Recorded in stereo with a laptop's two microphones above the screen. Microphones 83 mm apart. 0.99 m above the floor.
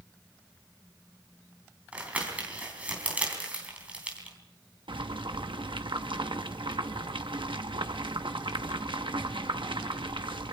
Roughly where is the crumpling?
Centre.